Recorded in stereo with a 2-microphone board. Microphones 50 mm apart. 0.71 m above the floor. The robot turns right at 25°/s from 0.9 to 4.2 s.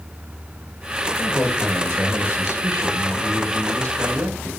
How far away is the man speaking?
About 9.5 m.